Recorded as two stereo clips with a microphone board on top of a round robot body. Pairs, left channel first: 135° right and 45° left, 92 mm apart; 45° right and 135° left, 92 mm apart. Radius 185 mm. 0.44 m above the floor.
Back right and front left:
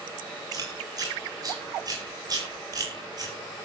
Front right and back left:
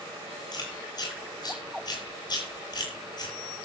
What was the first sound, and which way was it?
Chewing, straight ahead.